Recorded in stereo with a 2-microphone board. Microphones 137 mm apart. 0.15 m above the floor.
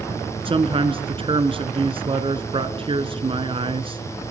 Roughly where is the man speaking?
Right.